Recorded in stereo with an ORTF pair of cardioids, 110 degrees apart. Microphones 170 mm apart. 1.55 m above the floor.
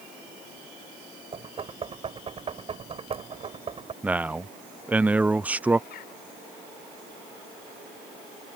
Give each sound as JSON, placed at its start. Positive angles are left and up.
{"t": 1.3, "sound": "knocking", "azimuth_deg": -35}
{"t": 4.0, "sound": "a man speaking", "azimuth_deg": -10}
{"t": 5.9, "sound": "a bird", "azimuth_deg": 65}